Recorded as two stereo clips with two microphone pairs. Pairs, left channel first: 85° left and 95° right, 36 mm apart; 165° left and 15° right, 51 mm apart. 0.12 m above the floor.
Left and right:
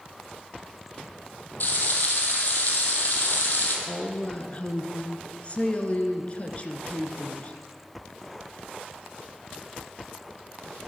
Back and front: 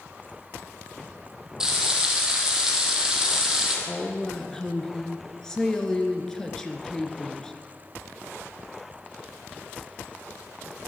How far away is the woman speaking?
About 1.8 m.